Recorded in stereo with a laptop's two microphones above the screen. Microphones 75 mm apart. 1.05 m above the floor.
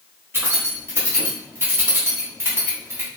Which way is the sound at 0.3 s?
30° right (ahead or behind).